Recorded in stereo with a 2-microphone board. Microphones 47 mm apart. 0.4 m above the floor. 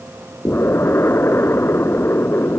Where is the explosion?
60° left (ahead or behind).